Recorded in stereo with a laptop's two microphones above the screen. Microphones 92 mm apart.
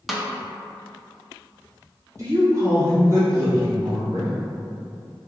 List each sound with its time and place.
0.1 s a snare drum: 5° right (ahead or behind), 0.5 m
2.2 s a woman speaking: 35° right (ahead or behind), 1.3 m